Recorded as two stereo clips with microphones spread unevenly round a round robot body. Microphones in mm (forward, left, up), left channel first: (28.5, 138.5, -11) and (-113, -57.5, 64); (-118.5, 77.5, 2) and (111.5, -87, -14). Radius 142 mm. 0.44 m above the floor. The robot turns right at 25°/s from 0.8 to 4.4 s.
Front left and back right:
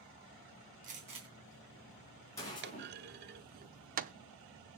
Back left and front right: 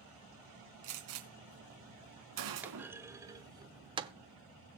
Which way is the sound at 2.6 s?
105° right.